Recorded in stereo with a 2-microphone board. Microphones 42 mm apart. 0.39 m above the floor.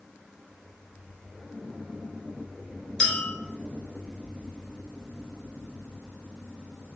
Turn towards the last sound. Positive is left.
turn(degrees=15)  # may be behind; listen again after turning